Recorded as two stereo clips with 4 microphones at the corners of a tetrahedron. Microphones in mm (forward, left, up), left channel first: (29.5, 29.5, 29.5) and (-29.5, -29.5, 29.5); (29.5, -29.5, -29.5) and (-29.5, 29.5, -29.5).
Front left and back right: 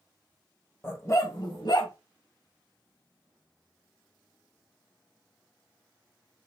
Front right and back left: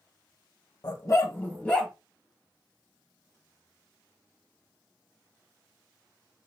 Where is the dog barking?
15° right, 0.8 m; by 1.9 s 40° left, 1.1 m.